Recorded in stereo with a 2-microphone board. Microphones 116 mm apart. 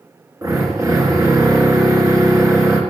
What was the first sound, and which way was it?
A drill, 25° right (ahead or behind).